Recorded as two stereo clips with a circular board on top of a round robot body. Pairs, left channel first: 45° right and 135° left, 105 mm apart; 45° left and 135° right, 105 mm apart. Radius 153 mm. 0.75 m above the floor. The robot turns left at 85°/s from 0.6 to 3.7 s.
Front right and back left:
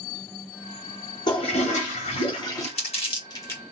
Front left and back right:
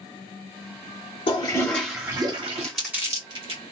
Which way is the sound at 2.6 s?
35° right.